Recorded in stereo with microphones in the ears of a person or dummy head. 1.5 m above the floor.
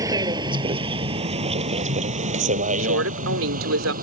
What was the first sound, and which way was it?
A vehicle, 25° right (ahead or behind).